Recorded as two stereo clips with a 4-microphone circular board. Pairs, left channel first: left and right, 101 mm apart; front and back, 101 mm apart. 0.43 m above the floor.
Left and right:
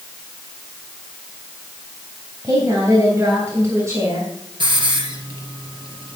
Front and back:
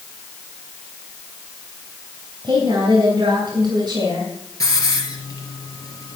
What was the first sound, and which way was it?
A woman speaking, 145° right.